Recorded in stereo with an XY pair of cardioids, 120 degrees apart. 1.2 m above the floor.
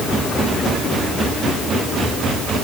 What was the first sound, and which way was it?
Only background noise.